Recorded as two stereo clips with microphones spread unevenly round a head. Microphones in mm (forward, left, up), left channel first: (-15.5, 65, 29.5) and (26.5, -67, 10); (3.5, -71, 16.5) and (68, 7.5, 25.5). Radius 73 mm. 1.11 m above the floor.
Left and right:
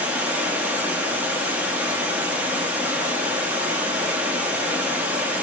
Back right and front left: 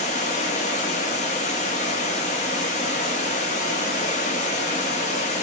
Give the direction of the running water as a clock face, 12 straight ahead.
5 o'clock.